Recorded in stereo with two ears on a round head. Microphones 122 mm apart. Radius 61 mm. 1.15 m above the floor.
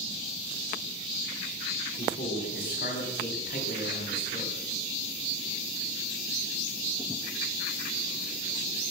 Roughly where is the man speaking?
Left.